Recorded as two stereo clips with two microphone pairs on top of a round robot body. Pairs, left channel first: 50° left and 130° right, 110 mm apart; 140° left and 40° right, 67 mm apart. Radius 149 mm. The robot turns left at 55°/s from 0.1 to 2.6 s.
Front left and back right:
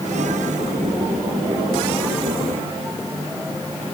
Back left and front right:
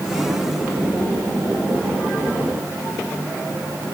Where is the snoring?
No snoring in this recording.